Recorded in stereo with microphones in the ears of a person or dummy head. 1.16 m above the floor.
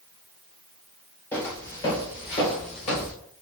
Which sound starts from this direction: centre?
Footsteps, at 1.3 s.